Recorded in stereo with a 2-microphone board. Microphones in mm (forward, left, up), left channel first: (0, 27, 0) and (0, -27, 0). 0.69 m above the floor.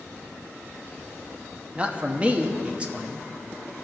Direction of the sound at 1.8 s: 20° right (ahead or behind).